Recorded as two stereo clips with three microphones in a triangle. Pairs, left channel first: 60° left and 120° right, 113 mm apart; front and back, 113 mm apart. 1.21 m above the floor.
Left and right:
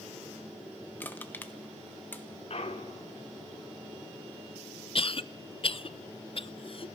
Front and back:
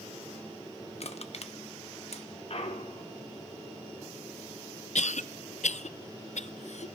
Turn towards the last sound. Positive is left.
turn(degrees=15)